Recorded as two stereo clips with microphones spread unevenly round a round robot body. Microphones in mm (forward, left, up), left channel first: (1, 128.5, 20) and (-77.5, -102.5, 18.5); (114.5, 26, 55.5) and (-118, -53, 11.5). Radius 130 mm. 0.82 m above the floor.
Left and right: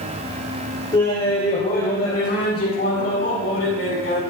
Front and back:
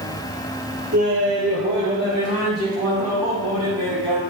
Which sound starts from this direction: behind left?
Laughter, at 0.9 s.